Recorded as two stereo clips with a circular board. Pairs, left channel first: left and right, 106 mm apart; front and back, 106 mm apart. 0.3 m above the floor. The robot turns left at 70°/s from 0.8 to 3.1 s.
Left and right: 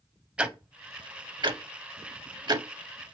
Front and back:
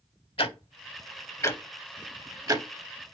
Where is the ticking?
10° right, 0.5 m; by 2.7 s 145° right, 0.5 m.